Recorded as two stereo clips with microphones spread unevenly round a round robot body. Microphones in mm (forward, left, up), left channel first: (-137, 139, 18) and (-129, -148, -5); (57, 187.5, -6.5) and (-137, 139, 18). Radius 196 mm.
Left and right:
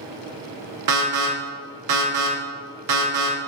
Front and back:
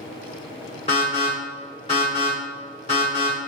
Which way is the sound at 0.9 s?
60° right.